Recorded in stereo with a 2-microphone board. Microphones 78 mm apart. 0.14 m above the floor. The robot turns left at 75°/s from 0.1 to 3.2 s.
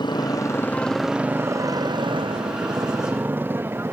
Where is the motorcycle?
65° left (ahead or behind); by 3.9 s 30° right (ahead or behind).